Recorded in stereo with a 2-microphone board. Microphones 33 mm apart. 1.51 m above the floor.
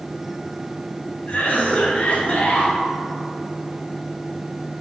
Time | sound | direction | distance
1.3 | a cough | 40° left (ahead or behind) | 1.2 m